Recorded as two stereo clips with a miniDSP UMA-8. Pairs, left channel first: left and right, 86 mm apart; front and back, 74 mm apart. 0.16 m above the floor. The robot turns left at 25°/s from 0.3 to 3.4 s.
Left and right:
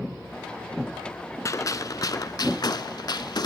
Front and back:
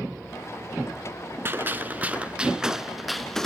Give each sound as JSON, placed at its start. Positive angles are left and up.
{"t": 1.4, "sound": "a gunshot", "azimuth_deg": 130, "distance_m": 0.6}